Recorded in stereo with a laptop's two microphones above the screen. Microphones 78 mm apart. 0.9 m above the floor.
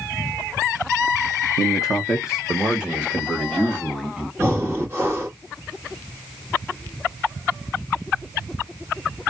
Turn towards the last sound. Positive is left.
turn(degrees=-30)  # may be behind; listen again after turning